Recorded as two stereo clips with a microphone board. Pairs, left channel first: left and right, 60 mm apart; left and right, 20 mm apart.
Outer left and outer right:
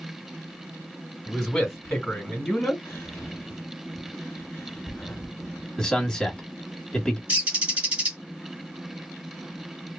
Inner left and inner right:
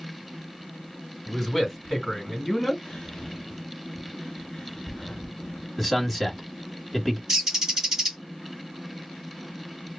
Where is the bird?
20° right (ahead or behind), 1.6 m.